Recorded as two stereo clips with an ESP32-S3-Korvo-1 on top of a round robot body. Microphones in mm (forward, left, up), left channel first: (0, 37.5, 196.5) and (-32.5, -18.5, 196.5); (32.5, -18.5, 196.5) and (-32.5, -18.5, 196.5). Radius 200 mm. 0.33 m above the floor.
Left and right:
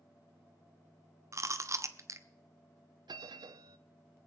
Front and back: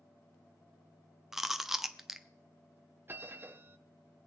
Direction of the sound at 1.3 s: 95° right.